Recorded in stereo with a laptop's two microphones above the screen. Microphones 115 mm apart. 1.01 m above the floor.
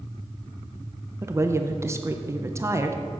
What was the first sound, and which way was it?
A woman speaking, 25° right (ahead or behind).